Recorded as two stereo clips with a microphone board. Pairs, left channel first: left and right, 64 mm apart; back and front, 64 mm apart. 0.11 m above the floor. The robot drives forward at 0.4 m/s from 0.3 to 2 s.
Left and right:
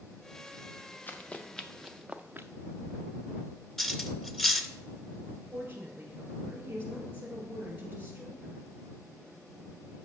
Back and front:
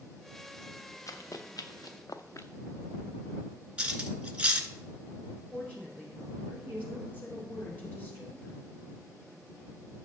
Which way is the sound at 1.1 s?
150° left.